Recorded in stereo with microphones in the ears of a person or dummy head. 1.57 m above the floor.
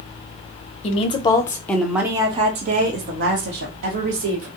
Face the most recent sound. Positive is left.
turn(degrees=-75)  # may be behind; listen again after turning